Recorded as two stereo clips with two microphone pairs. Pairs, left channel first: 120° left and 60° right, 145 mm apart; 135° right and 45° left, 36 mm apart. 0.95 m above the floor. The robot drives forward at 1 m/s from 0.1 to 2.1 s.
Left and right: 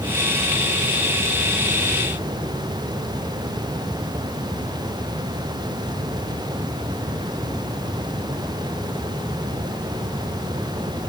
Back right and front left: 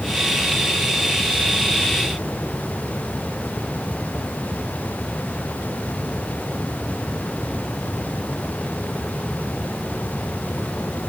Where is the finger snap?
I don't hear a finger snap.